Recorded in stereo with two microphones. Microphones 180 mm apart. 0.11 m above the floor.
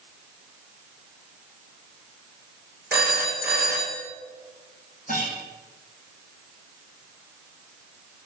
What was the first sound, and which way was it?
A phone ringing, 10° right (ahead or behind).